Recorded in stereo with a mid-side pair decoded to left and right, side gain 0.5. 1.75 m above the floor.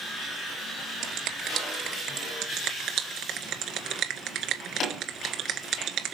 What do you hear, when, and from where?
1.0 s a finger snap: 70° right, 2 m
2.4 s a finger snap: 70° right, 1.7 m